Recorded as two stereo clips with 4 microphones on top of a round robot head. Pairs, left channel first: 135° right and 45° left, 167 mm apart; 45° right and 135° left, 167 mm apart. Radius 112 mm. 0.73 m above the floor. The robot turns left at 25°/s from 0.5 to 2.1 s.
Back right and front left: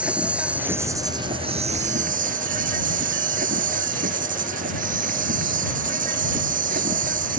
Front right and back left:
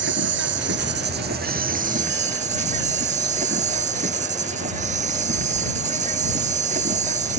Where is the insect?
125° left; by 7.4 s 85° left.